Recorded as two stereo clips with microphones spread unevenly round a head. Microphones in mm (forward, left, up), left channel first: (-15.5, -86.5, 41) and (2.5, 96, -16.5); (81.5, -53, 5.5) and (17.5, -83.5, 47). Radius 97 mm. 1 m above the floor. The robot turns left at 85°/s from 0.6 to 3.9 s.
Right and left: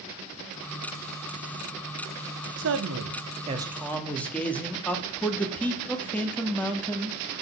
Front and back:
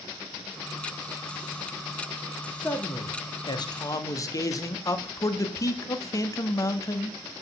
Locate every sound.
2.6 s a man speaking: 100° left, 1.5 m; by 7.2 s 10° right, 1.5 m